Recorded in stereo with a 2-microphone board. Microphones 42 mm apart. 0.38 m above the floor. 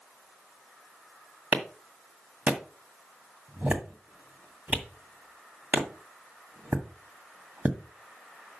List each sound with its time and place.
1.5 s a clap: 35° right (ahead or behind), 1.8 m